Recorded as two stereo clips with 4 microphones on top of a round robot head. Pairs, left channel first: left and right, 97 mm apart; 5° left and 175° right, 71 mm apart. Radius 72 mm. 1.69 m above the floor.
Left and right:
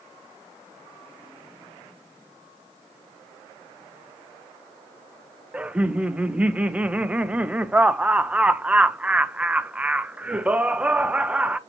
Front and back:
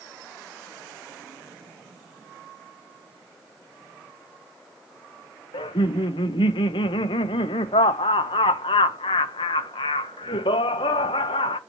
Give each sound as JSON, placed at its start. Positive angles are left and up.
{"t": 5.5, "sound": "laughter", "azimuth_deg": -10, "distance_m": 0.9}